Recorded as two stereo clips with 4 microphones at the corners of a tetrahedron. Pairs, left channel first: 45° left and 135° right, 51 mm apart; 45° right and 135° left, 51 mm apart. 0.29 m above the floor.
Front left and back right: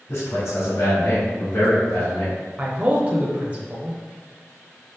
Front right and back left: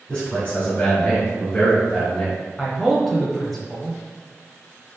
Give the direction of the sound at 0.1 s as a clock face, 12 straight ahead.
11 o'clock.